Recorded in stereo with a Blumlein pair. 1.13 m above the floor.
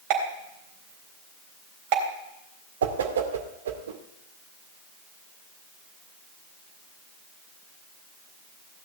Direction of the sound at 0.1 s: 45° right.